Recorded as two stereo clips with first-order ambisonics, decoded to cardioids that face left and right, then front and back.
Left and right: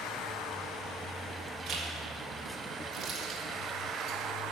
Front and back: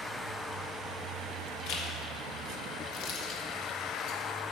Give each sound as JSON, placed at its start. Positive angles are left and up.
{"t": 1.7, "sound": "a zipper", "azimuth_deg": -30, "distance_m": 1.4}